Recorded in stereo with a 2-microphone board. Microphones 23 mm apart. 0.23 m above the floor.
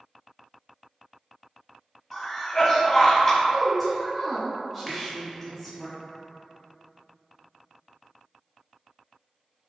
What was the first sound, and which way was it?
A cough, 15° left (ahead or behind).